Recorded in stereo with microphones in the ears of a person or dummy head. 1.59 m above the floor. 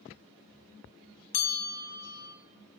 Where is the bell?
50° left (ahead or behind), 0.9 m.